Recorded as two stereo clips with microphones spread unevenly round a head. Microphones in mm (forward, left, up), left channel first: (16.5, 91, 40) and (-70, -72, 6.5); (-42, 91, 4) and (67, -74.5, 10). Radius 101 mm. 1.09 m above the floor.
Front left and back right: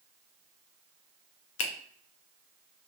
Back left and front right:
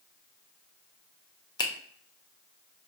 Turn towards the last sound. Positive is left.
turn(degrees=55)